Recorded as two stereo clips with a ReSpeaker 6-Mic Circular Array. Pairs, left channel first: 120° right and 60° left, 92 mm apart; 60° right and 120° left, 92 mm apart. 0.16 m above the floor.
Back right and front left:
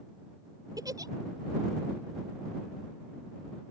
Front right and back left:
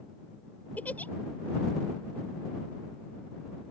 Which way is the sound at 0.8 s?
15° left.